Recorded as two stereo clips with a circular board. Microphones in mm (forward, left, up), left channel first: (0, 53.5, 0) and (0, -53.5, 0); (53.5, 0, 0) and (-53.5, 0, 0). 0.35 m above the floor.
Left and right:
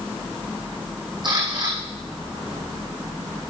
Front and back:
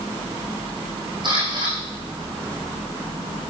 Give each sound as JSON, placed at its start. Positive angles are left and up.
{"t": 1.2, "sound": "a camera shutter", "azimuth_deg": -135, "distance_m": 5.5}